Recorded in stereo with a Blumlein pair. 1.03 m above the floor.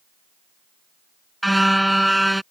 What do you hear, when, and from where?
1.4 s a car horn: straight ahead